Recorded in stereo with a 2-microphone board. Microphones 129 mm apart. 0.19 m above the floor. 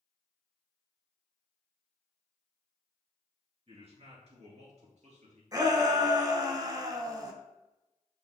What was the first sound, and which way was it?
A man speaking, 45° right (ahead or behind).